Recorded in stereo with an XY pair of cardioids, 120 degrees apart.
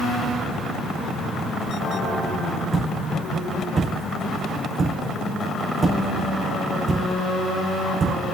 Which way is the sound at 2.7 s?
35° right.